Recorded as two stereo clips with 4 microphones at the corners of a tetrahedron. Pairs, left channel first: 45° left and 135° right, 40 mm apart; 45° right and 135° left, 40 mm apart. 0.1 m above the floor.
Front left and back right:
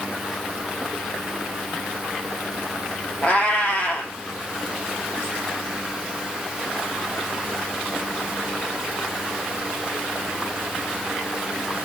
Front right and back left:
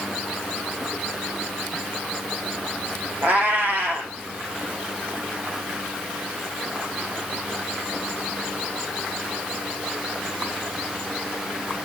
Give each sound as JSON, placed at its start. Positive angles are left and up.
{"t": 3.2, "sound": "a cat meowing", "azimuth_deg": 100, "distance_m": 2.5}